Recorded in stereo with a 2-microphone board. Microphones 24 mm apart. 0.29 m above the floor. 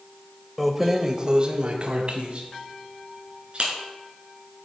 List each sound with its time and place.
0.6 s keys jangling: centre (ahead or behind), 0.6 m; by 3.7 s 45° right (ahead or behind), 2.5 m